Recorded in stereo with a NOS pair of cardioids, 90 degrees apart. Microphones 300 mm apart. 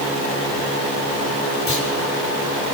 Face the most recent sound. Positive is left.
turn(degrees=55)